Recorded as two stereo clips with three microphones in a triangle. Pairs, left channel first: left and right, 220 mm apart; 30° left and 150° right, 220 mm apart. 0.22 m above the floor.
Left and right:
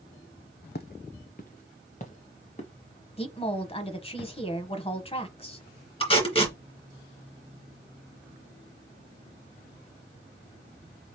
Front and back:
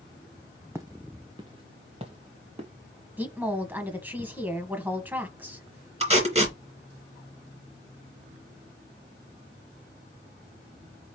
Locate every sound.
0.8 s footsteps: 135° left, 0.7 m; by 2.7 s 150° left, 2 m
3.2 s a woman speaking: 135° left, 1.1 m
6.0 s tape being pulled: 150° left, 2.5 m